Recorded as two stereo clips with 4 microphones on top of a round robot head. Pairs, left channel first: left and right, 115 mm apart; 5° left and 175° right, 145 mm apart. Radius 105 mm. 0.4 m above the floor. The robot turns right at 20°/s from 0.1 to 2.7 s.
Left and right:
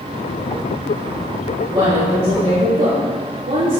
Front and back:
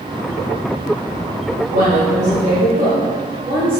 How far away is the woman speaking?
About 1.9 m.